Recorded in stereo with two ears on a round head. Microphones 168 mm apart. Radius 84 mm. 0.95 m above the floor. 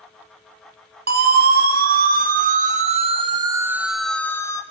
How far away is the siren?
About 3 m.